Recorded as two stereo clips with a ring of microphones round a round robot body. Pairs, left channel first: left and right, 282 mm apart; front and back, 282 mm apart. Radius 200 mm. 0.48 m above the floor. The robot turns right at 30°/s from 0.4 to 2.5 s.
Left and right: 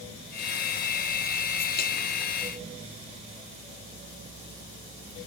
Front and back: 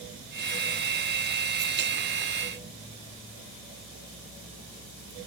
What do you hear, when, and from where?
Only background noise.